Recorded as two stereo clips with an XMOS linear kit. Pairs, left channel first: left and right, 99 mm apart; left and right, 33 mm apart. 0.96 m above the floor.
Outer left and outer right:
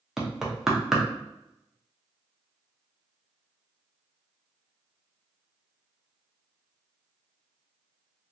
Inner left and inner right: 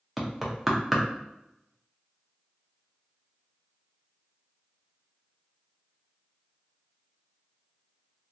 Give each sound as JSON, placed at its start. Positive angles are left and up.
{"t": 0.2, "sound": "knocking", "side_deg": -5, "distance_m": 0.7}